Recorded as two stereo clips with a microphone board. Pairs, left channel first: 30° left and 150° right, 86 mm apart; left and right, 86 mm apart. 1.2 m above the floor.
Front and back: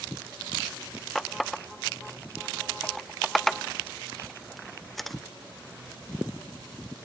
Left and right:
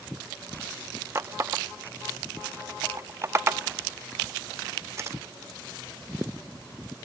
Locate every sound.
1.1 s a running tap: 55° right, 0.5 m